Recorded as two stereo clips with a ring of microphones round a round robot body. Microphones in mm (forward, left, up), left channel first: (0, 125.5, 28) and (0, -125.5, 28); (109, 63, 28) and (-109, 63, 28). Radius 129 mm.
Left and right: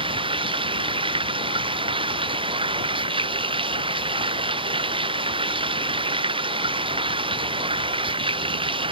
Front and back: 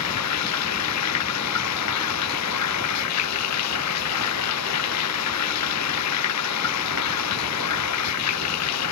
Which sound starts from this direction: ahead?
Running water, at 0.0 s.